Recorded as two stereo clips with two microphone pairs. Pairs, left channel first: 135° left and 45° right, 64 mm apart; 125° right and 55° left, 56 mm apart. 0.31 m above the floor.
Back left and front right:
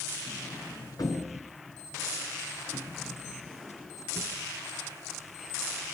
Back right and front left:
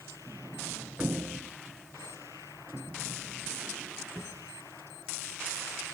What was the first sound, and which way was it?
A sliding door, 125° left.